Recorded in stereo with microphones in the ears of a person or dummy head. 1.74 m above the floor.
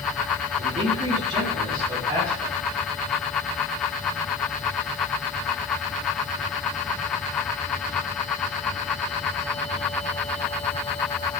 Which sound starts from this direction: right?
A man speaking, at 0.6 s.